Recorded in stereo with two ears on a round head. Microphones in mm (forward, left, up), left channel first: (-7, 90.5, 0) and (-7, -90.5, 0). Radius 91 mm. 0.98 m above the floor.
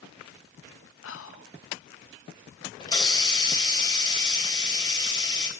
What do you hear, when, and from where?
1.0 s whispering: 70° left (ahead or behind), 0.9 m
2.8 s a hiss: 20° left (ahead or behind), 3 m